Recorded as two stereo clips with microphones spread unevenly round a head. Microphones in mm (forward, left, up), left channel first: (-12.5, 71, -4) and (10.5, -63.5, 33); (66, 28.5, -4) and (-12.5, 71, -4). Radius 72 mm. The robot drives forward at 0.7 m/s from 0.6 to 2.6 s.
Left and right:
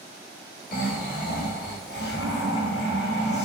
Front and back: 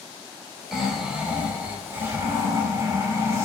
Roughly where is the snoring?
Ahead left.